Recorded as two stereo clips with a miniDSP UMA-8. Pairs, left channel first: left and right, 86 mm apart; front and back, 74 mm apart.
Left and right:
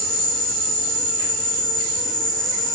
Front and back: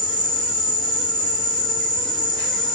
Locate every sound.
0.0 s an insect: 5° left, 1.2 m